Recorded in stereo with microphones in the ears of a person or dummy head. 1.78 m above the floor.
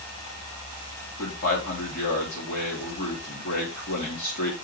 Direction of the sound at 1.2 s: 60° left (ahead or behind).